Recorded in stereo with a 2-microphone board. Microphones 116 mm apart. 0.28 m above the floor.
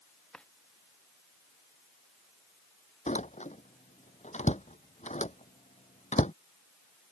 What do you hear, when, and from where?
0.3 s a drawer: 5° left (ahead or behind)
3.1 s a door slam: 80° left